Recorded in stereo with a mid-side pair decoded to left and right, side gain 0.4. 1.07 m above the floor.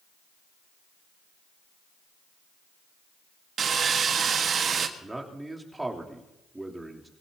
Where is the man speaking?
15° right, 3.5 m.